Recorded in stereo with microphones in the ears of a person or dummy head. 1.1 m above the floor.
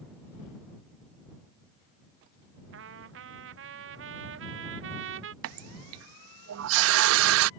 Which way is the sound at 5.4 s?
70° right (ahead or behind).